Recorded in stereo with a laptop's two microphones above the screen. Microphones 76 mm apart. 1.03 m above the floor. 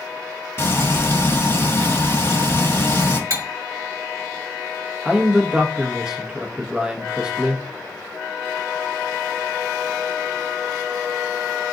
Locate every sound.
0.6 s frying: 35° left (ahead or behind), 1.5 m
3.3 s cutlery clinking: 45° right (ahead or behind), 1.4 m
5.0 s a man speaking: 10° right (ahead or behind), 1.2 m